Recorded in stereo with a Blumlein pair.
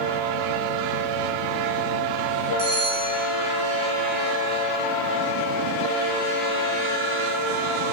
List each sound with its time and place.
2.6 s a bell: 60° right, 2.0 m